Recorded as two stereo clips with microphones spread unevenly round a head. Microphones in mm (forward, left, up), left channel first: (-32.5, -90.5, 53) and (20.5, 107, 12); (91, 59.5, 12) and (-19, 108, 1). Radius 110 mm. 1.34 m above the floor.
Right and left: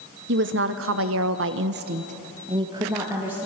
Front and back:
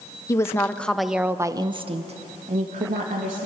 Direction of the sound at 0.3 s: 40° left.